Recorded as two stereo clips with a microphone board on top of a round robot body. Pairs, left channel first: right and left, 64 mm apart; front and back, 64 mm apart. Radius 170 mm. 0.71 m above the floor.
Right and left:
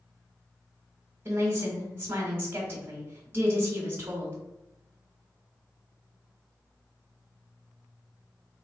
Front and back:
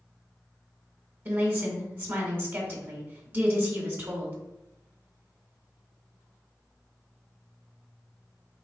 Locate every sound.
1.2 s a woman speaking: 135° left, 1.4 m